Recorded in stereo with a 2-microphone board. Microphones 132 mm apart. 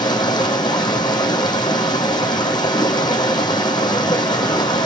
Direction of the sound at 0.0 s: 35° left (ahead or behind).